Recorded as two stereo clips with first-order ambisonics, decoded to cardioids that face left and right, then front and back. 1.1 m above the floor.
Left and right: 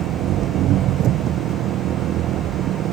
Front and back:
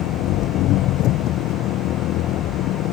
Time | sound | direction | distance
0.0 | an engine running | 40° right | ?